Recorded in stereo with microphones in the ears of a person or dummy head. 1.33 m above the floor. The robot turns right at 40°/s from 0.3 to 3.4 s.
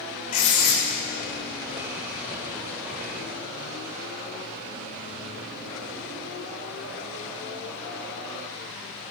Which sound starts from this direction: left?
Writing, at 0.3 s.